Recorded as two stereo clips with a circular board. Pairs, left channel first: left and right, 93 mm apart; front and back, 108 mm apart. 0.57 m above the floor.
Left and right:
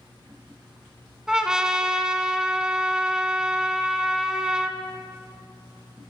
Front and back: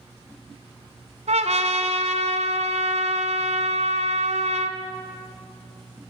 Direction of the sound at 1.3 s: 170° right.